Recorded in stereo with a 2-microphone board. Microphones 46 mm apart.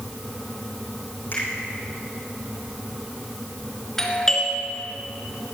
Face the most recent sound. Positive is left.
turn(degrees=10)  # may be behind; listen again after turning